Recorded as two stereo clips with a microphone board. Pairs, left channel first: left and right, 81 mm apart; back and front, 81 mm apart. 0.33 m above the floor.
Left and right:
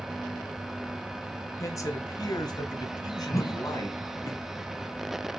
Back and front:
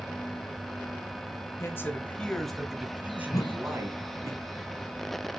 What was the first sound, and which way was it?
A man speaking, 130° left.